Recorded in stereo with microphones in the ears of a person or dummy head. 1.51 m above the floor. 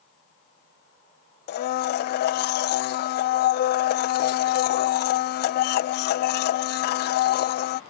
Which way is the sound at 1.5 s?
55° left (ahead or behind).